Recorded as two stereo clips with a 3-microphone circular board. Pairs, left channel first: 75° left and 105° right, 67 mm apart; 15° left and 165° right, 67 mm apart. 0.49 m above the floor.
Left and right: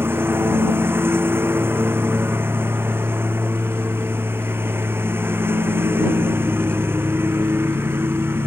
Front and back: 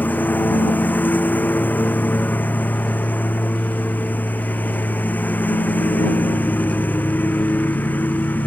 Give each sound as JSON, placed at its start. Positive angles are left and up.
{"t": 0.0, "sound": "a lawn mower", "azimuth_deg": -50}